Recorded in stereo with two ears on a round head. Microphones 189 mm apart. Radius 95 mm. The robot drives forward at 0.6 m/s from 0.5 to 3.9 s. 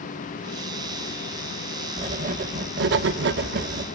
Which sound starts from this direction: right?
Writing, at 2.0 s.